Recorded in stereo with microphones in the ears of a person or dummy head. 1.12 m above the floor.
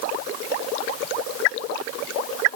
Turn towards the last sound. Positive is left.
No sound to turn to.